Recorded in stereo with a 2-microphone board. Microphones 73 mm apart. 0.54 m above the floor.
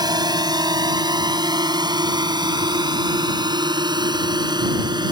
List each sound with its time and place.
0.0 s a drone: 70° right (ahead or behind); by 5.1 s 80° right